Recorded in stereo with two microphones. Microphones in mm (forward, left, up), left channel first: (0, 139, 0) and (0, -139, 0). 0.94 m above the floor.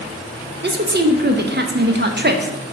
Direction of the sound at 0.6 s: 40° right (ahead or behind).